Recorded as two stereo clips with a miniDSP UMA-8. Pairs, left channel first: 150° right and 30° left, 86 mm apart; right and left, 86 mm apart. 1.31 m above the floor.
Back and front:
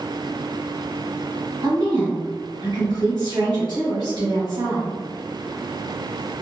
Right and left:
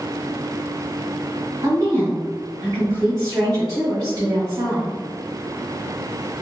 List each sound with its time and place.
1.6 s a woman speaking: 50° left, 1.7 m